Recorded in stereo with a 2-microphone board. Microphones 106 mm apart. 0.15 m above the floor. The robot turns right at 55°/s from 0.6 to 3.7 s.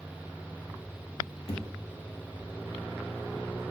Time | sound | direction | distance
1.5 | a thud | 60° left (ahead or behind) | 1.6 m